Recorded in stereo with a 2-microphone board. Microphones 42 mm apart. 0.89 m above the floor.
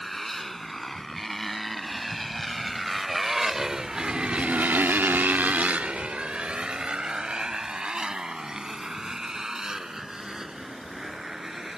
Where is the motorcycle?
5° left (ahead or behind); by 11.8 s 15° right (ahead or behind).